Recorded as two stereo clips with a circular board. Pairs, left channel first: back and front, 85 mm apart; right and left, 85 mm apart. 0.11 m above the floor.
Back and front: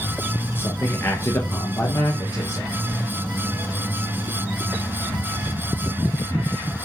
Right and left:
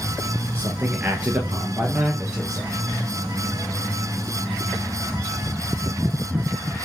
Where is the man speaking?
145° left, 1.7 m; by 2.7 s 165° left, 2.5 m.